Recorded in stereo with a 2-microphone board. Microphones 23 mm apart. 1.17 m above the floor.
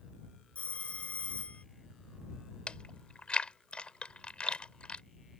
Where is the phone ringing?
70° left (ahead or behind).